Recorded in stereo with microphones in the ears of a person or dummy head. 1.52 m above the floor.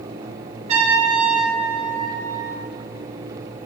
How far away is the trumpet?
About 0.9 m.